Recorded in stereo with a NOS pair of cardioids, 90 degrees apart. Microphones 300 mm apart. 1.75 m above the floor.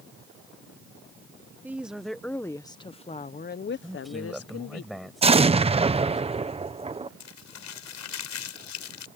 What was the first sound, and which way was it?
A woman speaking, 5° right.